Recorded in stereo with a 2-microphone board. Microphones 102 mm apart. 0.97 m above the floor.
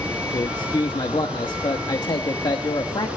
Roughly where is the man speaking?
Left.